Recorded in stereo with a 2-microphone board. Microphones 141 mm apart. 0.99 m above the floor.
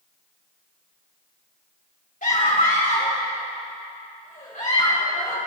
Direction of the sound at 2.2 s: 65° left (ahead or behind).